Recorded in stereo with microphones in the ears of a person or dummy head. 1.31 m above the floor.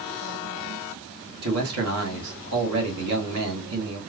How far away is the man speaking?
About 1.7 m.